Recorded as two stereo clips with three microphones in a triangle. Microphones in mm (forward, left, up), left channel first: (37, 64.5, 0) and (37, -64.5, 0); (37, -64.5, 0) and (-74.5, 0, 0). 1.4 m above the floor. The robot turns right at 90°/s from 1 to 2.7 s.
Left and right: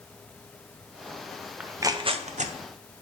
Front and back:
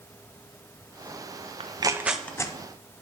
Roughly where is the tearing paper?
Behind.